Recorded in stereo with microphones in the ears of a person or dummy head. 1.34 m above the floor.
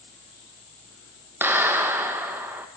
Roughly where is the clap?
Centre.